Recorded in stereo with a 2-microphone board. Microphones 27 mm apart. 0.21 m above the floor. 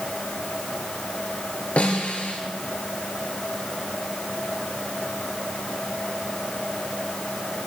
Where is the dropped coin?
No dropped coin in this recording.